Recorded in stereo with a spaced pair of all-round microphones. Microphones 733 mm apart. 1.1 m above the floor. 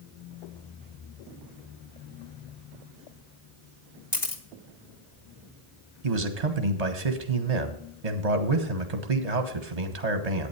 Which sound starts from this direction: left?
A camera shutter, at 4.1 s.